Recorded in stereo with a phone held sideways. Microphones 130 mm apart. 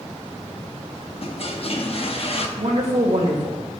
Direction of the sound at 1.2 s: 55° left (ahead or behind).